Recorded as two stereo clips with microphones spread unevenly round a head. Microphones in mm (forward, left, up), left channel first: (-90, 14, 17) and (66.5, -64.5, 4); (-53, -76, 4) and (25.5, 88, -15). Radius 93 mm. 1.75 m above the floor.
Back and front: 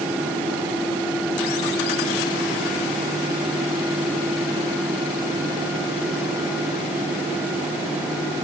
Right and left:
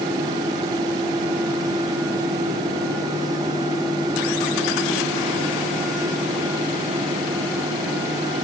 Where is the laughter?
I don't hear laughter.